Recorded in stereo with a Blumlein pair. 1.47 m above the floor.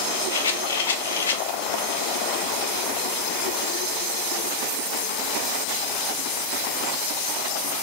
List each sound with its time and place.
0.3 s a rattle: 65° left, 0.6 m